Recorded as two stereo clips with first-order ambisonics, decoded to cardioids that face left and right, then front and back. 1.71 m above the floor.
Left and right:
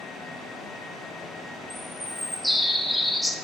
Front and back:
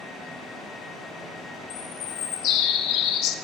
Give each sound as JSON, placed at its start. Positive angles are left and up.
{"t": 1.7, "sound": "a bird", "azimuth_deg": 0, "distance_m": 1.1}